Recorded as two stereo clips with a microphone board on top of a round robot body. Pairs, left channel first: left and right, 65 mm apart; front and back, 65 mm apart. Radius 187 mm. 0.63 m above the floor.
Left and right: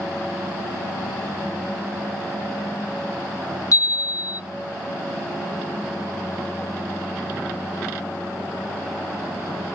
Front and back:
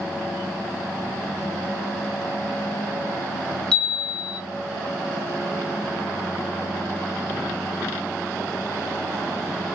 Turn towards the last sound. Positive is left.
turn(degrees=75)